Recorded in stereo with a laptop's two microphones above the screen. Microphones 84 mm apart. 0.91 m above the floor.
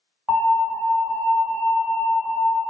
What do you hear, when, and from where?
0.3 s an alarm: 25° right (ahead or behind), 1.8 m